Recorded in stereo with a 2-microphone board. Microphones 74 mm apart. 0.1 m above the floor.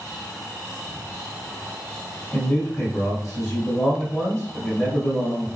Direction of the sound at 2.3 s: 35° left (ahead or behind).